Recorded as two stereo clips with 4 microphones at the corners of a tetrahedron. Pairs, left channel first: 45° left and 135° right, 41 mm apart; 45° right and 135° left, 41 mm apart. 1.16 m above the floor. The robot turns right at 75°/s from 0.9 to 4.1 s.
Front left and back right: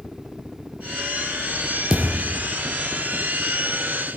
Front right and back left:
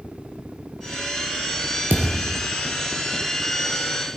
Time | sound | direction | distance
1.9 | a thud | 155° left | 3 m